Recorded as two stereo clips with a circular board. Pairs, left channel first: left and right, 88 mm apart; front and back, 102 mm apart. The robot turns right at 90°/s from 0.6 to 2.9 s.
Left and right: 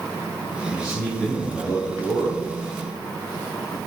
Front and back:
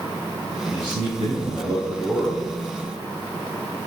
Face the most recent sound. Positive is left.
turn(degrees=-50)